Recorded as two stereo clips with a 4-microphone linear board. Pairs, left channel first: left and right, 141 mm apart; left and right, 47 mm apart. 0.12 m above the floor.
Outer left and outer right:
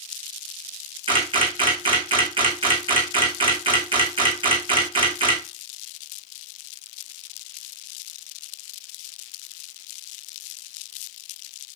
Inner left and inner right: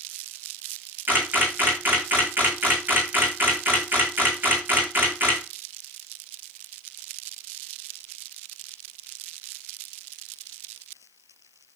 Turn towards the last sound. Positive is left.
turn(degrees=-35)  # may be behind; listen again after turning